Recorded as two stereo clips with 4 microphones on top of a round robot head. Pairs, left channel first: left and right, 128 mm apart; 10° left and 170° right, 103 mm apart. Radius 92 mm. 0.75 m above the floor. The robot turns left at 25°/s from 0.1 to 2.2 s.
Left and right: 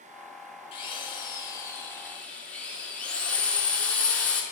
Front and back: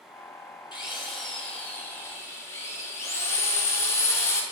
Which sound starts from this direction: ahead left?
A drill, at 0.7 s.